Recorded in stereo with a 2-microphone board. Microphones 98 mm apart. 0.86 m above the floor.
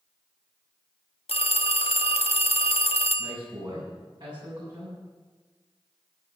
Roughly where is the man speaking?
Right.